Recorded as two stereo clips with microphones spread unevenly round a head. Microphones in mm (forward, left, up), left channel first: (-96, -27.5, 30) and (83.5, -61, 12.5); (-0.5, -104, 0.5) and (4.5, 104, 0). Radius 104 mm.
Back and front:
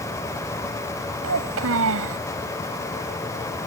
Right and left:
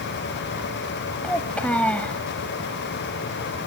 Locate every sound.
1.2 s a child speaking: 10° right